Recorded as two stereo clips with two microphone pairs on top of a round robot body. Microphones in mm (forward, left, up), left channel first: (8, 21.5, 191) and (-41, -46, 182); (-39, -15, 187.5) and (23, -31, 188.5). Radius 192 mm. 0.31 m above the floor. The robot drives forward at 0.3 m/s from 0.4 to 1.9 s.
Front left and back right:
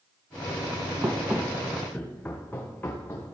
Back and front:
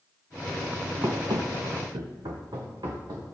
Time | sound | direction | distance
1.0 | running footsteps | 65° right | 0.8 m